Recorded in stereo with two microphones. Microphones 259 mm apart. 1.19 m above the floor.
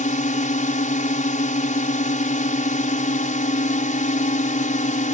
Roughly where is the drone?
Left.